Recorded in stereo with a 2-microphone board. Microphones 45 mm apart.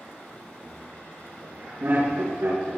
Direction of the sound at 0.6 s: 50° right (ahead or behind).